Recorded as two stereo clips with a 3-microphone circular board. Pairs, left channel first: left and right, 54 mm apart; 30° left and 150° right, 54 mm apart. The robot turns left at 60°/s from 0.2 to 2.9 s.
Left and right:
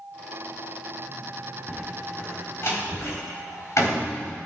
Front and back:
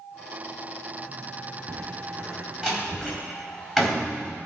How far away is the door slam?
About 4 m.